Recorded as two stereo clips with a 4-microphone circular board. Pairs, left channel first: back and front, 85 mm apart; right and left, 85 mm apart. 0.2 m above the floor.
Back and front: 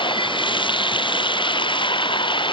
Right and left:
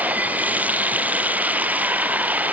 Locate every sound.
0.0 s running water: 165° left